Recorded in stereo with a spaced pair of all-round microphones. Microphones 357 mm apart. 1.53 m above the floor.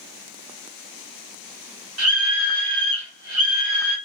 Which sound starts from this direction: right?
A scream, at 2.0 s.